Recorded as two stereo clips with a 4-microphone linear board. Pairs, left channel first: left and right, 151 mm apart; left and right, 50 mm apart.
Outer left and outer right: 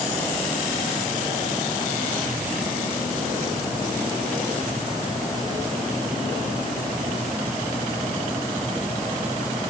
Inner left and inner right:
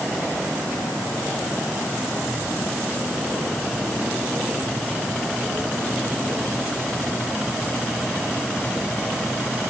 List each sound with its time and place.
Only background noise.